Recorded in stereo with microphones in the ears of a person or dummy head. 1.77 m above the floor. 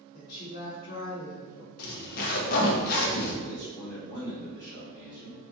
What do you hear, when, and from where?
0.1 s a woman speaking: 60° left (ahead or behind), 1.2 m
1.8 s a zipper: 50° left (ahead or behind), 0.7 m
3.4 s a man speaking: 20° left (ahead or behind), 1.9 m